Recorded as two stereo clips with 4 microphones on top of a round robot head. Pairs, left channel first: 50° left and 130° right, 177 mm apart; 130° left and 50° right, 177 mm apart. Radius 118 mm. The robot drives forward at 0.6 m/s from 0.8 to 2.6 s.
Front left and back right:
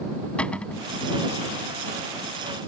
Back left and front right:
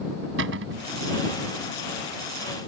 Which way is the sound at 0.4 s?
30° right.